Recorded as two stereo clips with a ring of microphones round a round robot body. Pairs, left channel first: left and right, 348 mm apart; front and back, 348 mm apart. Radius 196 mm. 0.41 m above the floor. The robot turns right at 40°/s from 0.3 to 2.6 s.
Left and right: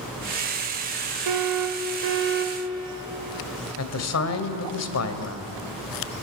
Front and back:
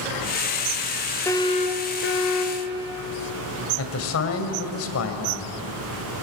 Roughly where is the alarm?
Right.